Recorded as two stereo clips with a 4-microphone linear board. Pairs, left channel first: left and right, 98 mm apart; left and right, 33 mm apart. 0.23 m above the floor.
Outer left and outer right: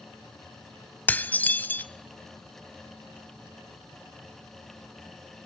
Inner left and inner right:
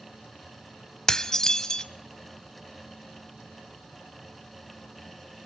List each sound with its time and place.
1.1 s dishes clattering: 20° left (ahead or behind), 0.7 m